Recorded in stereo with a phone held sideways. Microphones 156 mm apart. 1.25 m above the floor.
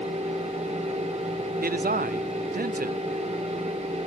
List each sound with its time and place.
0.0 s a fan: 50° right (ahead or behind), 2 m
1.6 s a man speaking: 80° right, 0.5 m